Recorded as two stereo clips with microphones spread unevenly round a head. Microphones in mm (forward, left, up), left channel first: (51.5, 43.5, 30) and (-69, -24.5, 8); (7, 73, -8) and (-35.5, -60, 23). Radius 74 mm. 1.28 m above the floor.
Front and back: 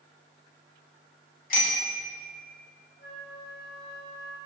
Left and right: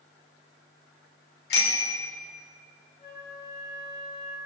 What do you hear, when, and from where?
1.5 s a bicycle bell: 55° left, 3.5 m
3.0 s a flute: 10° left, 5.5 m